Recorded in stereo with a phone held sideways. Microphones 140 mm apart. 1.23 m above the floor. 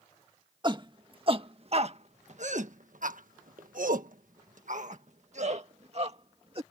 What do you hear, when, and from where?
0.6 s a shout: 35° right (ahead or behind); by 6.6 s 45° right (ahead or behind)